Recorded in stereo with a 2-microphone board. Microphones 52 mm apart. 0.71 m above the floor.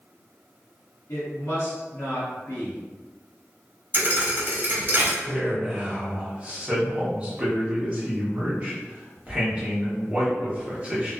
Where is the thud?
40° right (ahead or behind), 0.7 m.